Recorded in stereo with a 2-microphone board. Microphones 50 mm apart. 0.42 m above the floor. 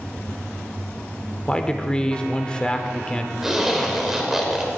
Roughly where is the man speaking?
Centre.